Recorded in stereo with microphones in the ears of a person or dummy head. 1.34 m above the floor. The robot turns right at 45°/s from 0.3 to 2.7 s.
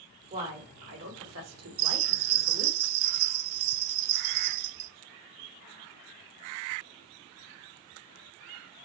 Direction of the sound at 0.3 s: 150° right.